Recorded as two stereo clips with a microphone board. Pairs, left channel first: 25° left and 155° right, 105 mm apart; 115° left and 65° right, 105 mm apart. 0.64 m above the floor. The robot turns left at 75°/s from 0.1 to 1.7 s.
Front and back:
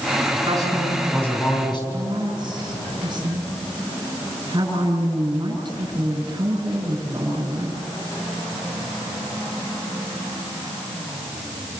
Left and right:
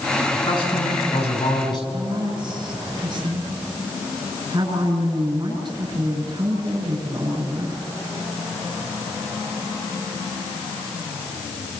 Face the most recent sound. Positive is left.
turn(degrees=-115)